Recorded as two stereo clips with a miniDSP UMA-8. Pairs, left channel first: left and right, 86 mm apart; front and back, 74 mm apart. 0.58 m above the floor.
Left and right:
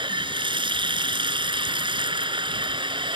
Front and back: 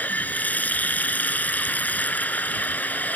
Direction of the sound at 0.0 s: 70° right.